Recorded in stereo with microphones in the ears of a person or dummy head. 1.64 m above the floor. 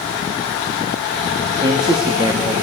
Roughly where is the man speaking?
Right.